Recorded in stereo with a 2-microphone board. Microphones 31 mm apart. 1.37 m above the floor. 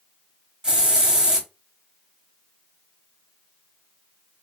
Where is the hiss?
20° right (ahead or behind), 1.4 m.